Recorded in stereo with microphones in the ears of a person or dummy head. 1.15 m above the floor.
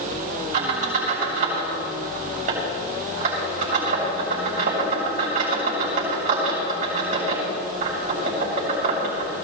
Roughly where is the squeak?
Right.